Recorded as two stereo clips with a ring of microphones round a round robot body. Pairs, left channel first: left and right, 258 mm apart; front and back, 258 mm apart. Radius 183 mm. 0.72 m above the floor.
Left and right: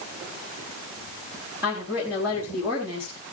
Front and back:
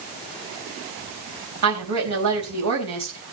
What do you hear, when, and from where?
1.6 s a woman speaking: 175° right, 4 m